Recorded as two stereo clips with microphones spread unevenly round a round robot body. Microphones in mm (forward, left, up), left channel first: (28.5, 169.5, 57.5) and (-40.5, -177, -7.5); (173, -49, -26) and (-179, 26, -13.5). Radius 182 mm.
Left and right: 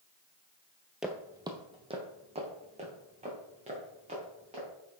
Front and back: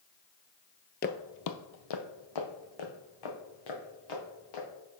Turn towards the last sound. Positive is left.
turn(degrees=-30)